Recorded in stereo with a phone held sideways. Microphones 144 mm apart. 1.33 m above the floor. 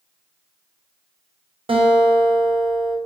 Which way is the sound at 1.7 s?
40° right (ahead or behind).